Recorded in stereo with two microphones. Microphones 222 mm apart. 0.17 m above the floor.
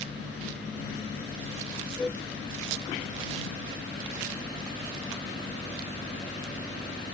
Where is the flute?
5° left (ahead or behind).